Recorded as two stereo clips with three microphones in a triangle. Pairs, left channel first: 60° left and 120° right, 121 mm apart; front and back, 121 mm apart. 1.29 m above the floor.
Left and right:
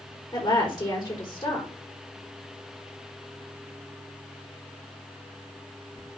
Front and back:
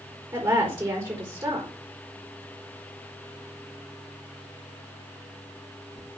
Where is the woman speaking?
125° left, 4 m.